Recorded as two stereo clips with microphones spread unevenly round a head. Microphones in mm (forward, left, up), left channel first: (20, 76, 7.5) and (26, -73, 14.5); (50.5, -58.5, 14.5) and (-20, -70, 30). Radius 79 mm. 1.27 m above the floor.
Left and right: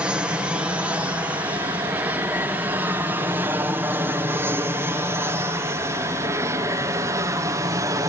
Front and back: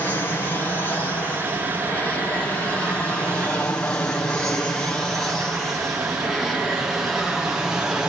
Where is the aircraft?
5° right; by 8.1 s 70° right.